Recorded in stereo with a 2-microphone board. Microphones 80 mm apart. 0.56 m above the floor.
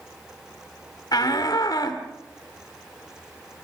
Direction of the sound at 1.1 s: 55° left (ahead or behind).